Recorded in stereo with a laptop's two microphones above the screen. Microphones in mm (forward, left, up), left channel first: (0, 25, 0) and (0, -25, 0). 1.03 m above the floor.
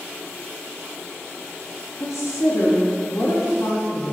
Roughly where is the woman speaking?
Left.